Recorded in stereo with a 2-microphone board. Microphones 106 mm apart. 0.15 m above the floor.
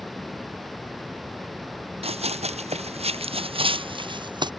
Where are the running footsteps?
70° right (ahead or behind); by 4.5 s 45° right (ahead or behind).